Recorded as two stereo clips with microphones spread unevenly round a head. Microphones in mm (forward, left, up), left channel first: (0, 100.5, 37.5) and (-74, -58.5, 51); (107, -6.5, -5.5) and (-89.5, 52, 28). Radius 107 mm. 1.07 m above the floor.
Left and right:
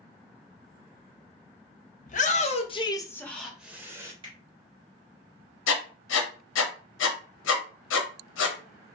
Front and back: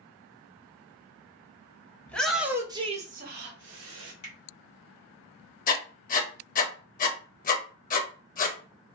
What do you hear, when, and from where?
2.1 s a shout: 55° left, 0.8 m; by 4.1 s 170° left, 0.9 m
4.2 s a finger snap: 50° right, 1.1 m
5.7 s writing: 35° left, 0.6 m